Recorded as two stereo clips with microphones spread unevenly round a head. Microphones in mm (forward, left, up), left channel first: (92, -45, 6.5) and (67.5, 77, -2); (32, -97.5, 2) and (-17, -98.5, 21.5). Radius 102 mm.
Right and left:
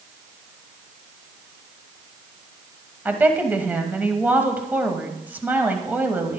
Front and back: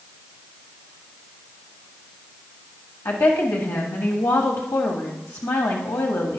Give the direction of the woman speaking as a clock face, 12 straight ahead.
11 o'clock.